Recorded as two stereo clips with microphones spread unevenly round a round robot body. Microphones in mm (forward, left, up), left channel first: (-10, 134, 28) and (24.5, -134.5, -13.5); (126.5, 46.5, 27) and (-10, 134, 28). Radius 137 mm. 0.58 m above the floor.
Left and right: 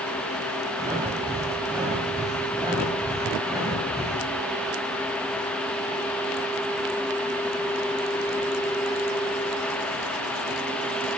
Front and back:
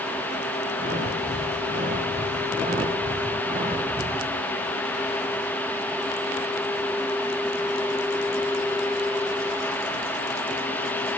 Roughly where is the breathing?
Behind.